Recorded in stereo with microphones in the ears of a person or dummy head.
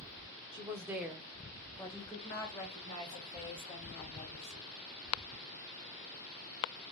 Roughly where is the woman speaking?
Right.